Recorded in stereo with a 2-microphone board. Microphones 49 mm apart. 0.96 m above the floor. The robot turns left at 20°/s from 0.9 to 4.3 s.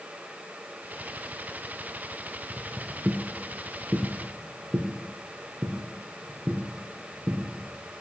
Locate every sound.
2.5 s footsteps: 10° right (ahead or behind), 1.1 m; by 8.0 s 30° right (ahead or behind), 3 m